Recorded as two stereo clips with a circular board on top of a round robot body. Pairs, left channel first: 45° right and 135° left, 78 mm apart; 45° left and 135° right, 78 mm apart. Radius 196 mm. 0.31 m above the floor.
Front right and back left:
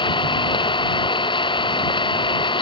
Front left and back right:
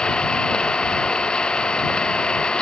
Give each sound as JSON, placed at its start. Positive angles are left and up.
{"t": 0.0, "sound": "an engine running", "azimuth_deg": -35}